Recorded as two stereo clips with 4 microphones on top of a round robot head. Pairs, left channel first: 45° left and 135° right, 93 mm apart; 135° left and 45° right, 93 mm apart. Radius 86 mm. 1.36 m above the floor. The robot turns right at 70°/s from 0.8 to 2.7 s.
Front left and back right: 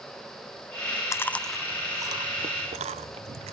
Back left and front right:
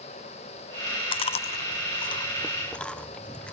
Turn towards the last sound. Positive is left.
turn(degrees=-145)